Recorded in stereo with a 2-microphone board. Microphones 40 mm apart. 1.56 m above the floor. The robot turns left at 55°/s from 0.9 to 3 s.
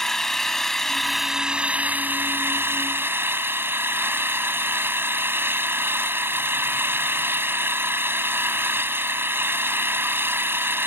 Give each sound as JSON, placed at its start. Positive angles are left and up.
{"t": 0.0, "sound": "an engine running", "azimuth_deg": 10}